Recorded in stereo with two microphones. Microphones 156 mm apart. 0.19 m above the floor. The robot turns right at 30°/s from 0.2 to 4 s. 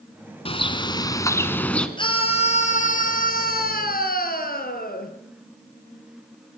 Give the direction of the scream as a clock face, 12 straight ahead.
11 o'clock.